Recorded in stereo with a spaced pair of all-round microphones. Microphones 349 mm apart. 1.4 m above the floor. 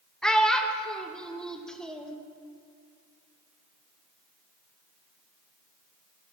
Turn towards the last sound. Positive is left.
turn(degrees=0)  # may be behind; listen again after turning